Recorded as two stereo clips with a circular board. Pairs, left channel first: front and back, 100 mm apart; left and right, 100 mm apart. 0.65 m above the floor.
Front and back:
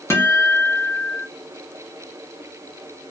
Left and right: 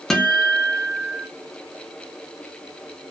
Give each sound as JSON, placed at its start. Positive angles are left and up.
{"t": 0.1, "sound": "a guitar", "azimuth_deg": 5, "distance_m": 0.6}